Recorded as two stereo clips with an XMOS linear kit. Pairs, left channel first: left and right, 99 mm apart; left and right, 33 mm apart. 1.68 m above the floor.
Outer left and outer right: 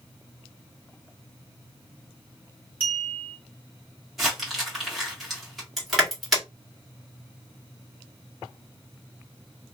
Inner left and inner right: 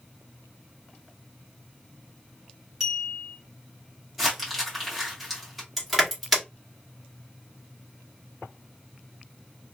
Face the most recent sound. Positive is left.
turn(degrees=0)  # may be behind; listen again after turning